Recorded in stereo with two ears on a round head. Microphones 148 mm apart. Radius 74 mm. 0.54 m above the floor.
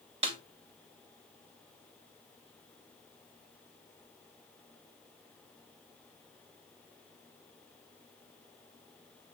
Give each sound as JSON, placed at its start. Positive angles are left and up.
{"t": 0.2, "sound": "a snare drum", "side_deg": -35, "distance_m": 2.0}